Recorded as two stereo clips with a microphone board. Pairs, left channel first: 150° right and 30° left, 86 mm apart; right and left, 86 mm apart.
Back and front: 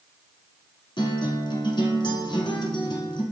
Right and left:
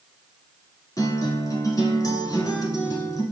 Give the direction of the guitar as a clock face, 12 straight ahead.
4 o'clock.